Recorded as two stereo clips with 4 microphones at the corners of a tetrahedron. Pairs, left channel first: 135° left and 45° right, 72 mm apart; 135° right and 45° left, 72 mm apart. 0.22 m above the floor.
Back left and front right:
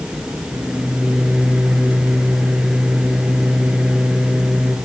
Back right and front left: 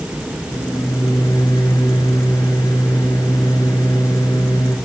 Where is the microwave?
120° right, 2.5 m.